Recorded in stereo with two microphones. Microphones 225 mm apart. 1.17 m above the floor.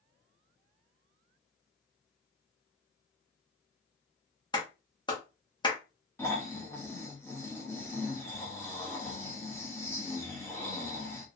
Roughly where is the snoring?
Centre.